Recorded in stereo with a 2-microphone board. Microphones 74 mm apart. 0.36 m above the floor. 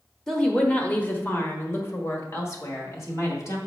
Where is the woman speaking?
10° left (ahead or behind), 1.1 m; by 3.6 s 45° left (ahead or behind), 2.0 m.